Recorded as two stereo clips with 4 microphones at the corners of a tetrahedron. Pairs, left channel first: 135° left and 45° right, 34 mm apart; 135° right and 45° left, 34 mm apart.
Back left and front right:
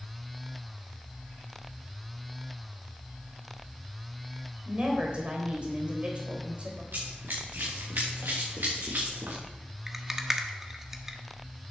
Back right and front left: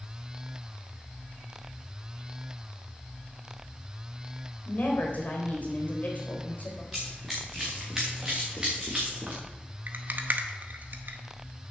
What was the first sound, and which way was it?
A woman speaking, 100° right.